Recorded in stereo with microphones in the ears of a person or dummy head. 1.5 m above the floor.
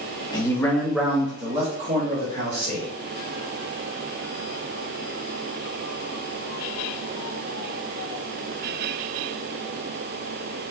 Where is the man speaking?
25° left (ahead or behind), 0.8 m; by 2.9 s 55° right (ahead or behind), 1.4 m.